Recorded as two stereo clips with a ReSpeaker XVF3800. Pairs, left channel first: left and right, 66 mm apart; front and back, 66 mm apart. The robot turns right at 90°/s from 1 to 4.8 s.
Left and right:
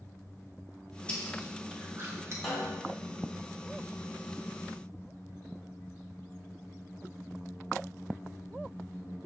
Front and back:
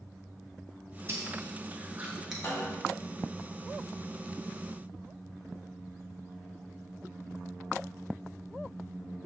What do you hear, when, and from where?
1.1 s chewing: 150° left, 0.8 m; by 2.3 s 95° right, 0.8 m
2.4 s a snare drum: 15° left, 1.4 m; by 3.0 s 65° left, 1.4 m